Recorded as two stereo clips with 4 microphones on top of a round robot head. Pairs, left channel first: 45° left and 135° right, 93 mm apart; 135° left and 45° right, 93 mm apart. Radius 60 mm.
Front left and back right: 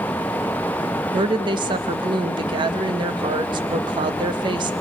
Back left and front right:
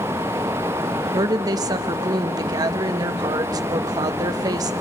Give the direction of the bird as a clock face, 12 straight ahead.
I don't hear a bird.